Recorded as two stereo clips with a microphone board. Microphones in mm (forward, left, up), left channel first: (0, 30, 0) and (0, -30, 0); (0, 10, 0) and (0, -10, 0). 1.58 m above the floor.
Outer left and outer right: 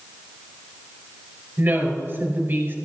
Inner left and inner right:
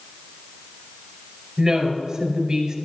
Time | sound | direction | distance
1.6 | a woman speaking | 35° right (ahead or behind) | 4.5 m